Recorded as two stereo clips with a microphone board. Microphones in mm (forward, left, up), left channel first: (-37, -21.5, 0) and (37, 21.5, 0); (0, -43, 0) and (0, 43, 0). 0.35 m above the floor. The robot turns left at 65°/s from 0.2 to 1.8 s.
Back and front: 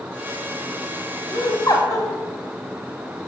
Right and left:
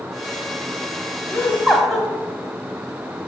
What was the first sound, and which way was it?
Laughter, 145° right.